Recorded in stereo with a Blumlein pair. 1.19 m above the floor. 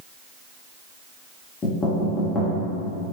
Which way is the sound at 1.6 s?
20° left.